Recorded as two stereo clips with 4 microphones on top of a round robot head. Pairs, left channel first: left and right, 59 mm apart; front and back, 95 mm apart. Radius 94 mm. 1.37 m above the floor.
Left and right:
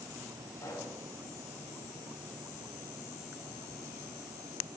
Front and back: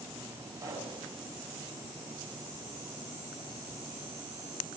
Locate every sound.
0.6 s a pop: 125° left, 5.5 m